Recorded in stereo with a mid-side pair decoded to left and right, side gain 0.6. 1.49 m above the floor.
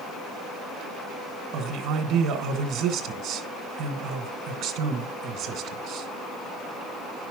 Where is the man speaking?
70° right, 1.4 m.